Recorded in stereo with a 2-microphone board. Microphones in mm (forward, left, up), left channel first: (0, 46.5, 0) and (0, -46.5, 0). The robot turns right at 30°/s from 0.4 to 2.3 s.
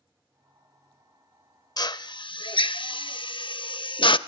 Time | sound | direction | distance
1.8 | a drill | 45° left (ahead or behind) | 0.5 m